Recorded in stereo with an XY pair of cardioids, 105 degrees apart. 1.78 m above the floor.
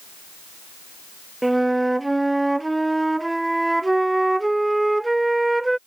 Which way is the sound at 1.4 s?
10° right.